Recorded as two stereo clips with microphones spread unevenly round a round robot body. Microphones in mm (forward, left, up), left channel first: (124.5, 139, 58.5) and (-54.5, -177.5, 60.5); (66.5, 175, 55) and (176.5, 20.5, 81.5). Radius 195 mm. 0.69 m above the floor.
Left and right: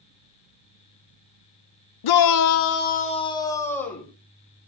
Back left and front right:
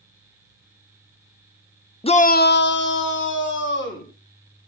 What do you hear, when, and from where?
2.0 s a shout: 65° left, 1.0 m; by 4.1 s 150° left, 3.5 m